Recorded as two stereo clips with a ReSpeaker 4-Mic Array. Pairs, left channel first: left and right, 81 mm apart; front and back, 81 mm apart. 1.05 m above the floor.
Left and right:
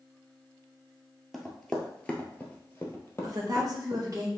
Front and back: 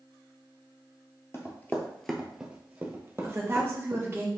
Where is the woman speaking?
125° right, 1.3 m.